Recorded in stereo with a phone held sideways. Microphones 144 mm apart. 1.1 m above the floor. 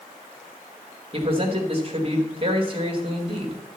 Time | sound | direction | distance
1.1 | a man speaking | 40° right (ahead or behind) | 1.9 m